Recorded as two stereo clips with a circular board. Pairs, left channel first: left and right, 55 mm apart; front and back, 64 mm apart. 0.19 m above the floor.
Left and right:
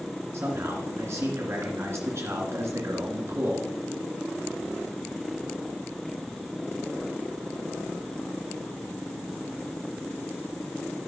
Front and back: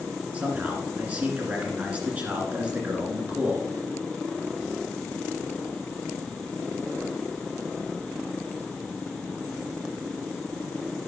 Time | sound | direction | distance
0.3 | a man speaking | 115° right | 2 m